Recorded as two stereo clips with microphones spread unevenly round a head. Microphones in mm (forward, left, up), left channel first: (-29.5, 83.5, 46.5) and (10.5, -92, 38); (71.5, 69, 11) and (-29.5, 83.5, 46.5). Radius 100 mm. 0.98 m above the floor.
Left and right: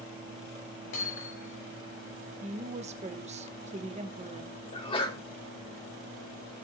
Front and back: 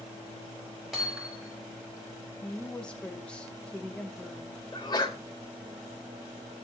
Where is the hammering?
80° left, 6.5 m.